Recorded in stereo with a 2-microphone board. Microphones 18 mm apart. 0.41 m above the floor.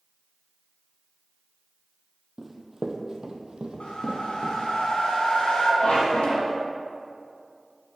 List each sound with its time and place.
2.4 s running footsteps: 20° right (ahead or behind), 0.9 m; by 4.6 s 75° right (ahead or behind), 1.3 m
3.8 s a whoosh: 85° left, 1.4 m
5.8 s a squeak: 70° left (ahead or behind), 2.0 m